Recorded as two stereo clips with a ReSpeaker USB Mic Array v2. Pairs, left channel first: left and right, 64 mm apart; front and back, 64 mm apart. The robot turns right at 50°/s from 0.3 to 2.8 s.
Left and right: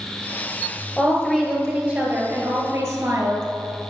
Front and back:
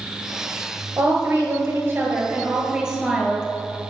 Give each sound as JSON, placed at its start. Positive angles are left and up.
{"t": 1.0, "sound": "a woman speaking", "azimuth_deg": 155, "distance_m": 1.4}